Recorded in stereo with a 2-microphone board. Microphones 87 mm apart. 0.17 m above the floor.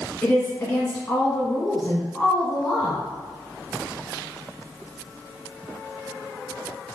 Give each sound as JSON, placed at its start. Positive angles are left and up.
{"t": 0.2, "sound": "a woman speaking", "side_deg": 20, "distance_m": 1.3}